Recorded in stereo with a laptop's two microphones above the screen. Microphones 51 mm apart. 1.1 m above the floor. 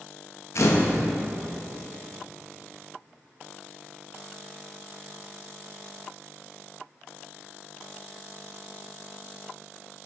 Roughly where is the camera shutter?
Left.